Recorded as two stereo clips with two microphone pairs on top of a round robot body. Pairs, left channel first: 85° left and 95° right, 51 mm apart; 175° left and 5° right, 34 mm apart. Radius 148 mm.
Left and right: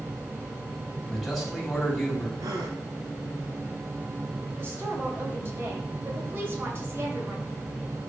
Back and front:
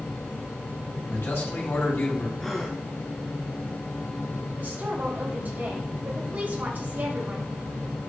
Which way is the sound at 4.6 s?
45° right.